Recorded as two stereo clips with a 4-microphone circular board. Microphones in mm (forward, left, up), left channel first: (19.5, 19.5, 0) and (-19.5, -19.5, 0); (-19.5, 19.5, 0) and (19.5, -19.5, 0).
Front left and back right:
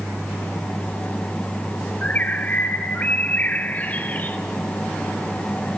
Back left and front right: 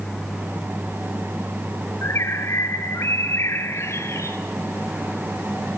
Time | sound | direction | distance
2.0 | a bird | 105° left | 0.9 m